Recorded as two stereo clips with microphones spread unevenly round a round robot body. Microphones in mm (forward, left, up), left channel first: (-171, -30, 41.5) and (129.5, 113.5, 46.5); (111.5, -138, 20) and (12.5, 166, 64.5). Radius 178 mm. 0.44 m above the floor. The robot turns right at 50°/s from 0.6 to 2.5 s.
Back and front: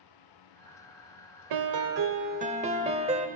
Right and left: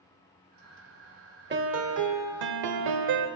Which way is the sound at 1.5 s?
50° left.